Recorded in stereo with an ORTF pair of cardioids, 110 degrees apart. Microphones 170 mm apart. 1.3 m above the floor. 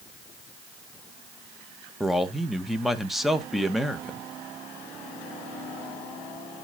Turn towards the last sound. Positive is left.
turn(degrees=0)